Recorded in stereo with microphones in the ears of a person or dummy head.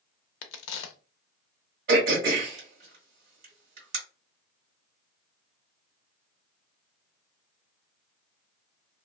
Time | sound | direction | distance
0.4 | a crack | 85° left | 0.5 m
1.9 | throat clearing | 55° right (ahead or behind) | 1.5 m